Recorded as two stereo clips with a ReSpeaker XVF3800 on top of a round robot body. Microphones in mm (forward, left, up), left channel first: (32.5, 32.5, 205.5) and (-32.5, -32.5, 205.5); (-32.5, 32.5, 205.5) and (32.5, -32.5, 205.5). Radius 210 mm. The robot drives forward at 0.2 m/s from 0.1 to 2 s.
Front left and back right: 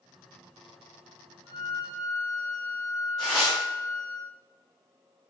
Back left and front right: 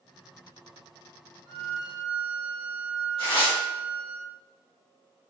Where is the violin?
175° right, 1.4 m.